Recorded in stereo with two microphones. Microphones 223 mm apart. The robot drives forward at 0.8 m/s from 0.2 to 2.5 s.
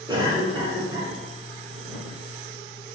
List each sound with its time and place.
0.1 s a cough: 20° right (ahead or behind), 1.1 m; by 1.1 s 15° right (ahead or behind), 1.4 m